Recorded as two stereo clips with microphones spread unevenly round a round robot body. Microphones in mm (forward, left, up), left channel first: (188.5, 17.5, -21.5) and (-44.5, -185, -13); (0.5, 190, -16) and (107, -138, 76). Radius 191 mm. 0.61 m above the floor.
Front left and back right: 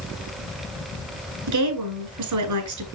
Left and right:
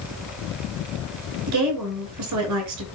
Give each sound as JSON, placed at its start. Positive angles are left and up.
{"t": 1.5, "sound": "a woman speaking", "azimuth_deg": -120, "distance_m": 5.5}